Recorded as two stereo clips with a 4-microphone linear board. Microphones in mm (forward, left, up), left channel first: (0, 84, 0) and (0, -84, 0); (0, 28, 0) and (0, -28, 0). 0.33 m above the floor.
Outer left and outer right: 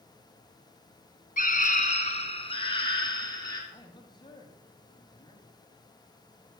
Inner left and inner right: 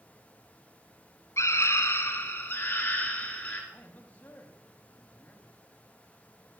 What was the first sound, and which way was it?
A scream, 55° left (ahead or behind).